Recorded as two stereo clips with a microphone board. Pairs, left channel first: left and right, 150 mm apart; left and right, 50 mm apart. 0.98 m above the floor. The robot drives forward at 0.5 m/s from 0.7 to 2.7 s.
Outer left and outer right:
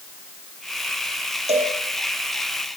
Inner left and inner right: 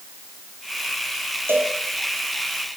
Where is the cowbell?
45° right (ahead or behind), 5 m; by 1.8 s 50° right (ahead or behind), 5 m.